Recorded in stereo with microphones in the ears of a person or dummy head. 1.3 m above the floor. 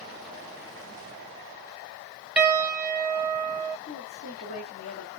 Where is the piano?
5° right (ahead or behind), 1.4 m.